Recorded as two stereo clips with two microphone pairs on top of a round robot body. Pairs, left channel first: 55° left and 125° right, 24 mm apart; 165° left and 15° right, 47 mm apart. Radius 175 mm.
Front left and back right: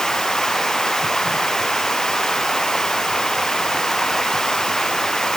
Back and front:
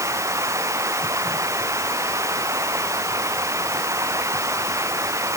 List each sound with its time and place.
0.0 s running water: 15° right